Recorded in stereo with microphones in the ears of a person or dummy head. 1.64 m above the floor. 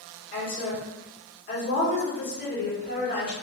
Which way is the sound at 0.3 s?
45° left (ahead or behind).